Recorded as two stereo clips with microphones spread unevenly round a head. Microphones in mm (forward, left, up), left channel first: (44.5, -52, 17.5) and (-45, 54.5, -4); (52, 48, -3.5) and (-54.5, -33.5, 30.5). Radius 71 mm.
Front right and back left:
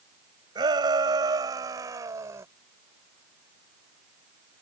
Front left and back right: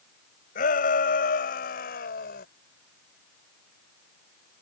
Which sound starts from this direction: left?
A shout, at 0.6 s.